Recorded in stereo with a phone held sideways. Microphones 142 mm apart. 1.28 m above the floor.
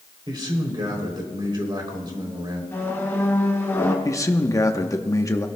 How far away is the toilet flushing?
No toilet flushing in this recording.